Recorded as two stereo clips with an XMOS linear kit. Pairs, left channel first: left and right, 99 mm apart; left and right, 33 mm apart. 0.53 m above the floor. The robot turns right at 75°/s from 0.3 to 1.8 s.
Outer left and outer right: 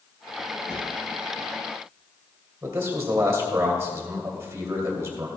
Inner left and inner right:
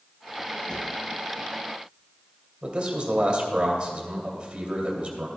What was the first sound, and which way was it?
A drawer, 25° left (ahead or behind).